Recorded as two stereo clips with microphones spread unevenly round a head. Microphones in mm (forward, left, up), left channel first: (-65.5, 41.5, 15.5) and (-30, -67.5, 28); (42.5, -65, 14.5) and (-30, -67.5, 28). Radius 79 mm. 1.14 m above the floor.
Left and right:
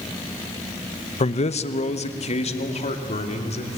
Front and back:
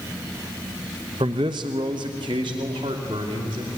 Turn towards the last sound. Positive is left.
turn(degrees=135)